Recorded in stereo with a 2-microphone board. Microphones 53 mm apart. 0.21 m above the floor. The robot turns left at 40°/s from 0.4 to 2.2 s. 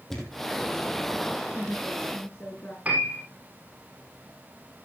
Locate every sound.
0.1 s a thud: centre (ahead or behind), 3.5 m; by 0.5 s 5° left (ahead or behind), 3.5 m
1.5 s a woman speaking: 10° left (ahead or behind), 3 m; by 2.8 s 35° left (ahead or behind), 3 m
2.9 s a piano: 30° right (ahead or behind), 5 m